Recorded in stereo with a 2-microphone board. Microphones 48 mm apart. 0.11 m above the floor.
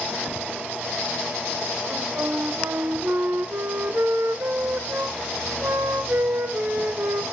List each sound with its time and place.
1.9 s a flute: 55° right (ahead or behind), 1.1 m